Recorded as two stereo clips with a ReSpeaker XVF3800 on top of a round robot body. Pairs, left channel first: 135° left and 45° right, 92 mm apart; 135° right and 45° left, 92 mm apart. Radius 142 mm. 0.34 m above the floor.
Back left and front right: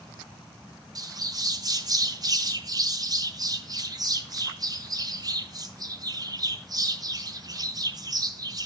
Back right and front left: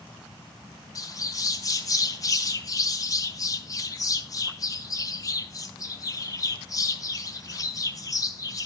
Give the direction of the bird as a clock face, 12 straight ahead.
3 o'clock.